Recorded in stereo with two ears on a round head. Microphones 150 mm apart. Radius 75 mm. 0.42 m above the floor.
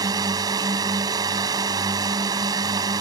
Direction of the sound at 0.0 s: 25° right (ahead or behind).